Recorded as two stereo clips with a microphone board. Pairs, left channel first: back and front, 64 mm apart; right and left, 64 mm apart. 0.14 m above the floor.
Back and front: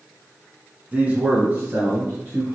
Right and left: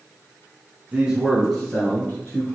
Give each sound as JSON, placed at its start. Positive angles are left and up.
{"t": 0.9, "sound": "a man speaking", "azimuth_deg": 45, "distance_m": 1.2}